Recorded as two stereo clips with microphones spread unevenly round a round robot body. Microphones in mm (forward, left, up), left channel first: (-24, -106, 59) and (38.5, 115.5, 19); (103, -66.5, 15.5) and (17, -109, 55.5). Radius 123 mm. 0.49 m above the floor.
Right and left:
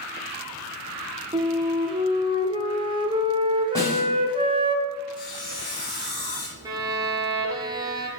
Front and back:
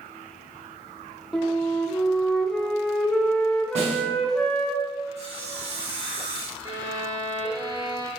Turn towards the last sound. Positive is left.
turn(degrees=140)